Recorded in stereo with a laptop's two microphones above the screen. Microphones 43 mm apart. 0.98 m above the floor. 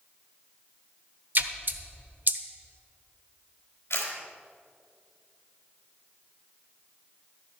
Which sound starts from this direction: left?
A camera shutter, at 3.9 s.